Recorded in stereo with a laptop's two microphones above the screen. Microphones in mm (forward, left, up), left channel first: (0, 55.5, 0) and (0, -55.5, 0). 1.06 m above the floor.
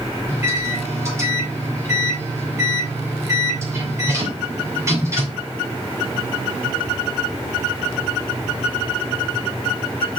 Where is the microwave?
25° right (ahead or behind), 2.5 m.